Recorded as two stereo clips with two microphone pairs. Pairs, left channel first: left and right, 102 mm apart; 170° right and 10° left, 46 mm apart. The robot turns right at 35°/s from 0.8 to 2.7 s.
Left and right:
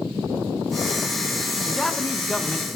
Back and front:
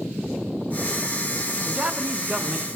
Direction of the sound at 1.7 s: 10° left.